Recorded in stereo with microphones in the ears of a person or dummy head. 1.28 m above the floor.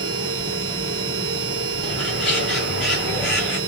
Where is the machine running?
70° right (ahead or behind), 1.8 m.